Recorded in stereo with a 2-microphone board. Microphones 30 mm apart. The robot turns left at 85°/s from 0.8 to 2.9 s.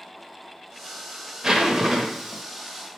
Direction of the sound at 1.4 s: 15° right (ahead or behind).